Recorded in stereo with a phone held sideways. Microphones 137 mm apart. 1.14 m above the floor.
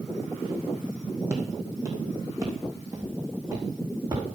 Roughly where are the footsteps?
Centre.